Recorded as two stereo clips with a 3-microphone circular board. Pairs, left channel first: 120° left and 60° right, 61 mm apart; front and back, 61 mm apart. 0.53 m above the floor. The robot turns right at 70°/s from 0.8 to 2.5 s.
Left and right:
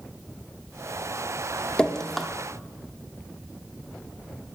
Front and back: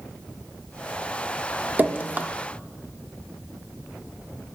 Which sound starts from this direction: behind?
Dripping, at 1.8 s.